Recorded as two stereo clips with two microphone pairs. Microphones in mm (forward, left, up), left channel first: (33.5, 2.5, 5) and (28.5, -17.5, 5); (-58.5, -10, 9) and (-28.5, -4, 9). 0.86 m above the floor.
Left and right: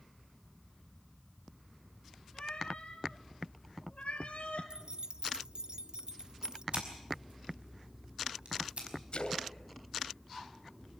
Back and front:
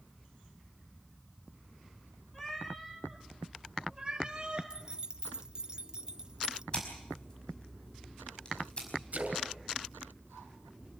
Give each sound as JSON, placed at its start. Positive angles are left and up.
{"t": 2.3, "sound": "a cat meowing", "azimuth_deg": 115, "distance_m": 3.0}
{"t": 4.7, "sound": "keys jangling", "azimuth_deg": -55, "distance_m": 0.5}
{"t": 6.7, "sound": "scissors", "azimuth_deg": -115, "distance_m": 5.0}
{"t": 9.1, "sound": "a splash", "azimuth_deg": 40, "distance_m": 3.0}